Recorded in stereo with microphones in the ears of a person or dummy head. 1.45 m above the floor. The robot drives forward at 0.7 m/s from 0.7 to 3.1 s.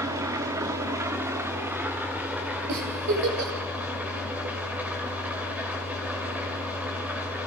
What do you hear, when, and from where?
0.0 s an engine running: 15° right (ahead or behind), 1.2 m; by 7.5 s 5° right (ahead or behind), 2.5 m
2.7 s a giggle: 60° right (ahead or behind), 2.5 m; by 3.5 s 55° right (ahead or behind), 2.5 m